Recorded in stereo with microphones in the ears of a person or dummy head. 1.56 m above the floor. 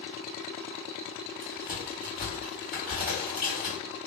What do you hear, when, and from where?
1.4 s a crack: 5° right (ahead or behind), 1.8 m